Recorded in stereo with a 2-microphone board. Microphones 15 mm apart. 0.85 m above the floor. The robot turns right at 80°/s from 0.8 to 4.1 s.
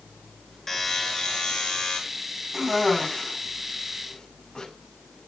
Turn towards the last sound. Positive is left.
turn(degrees=60)  # may be behind; listen again after turning